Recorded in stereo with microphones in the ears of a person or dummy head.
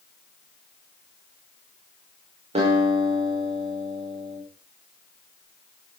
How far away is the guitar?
About 5 m.